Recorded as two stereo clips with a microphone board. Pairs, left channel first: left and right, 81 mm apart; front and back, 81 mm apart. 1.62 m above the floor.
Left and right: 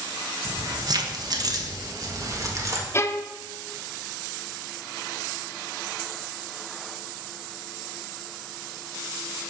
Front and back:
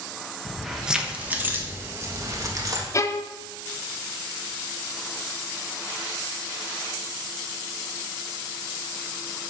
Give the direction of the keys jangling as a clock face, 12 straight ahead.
3 o'clock.